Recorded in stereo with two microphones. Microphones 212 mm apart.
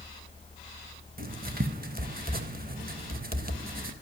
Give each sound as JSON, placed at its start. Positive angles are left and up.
{"t": 1.2, "sound": "writing", "side_deg": -45, "distance_m": 0.5}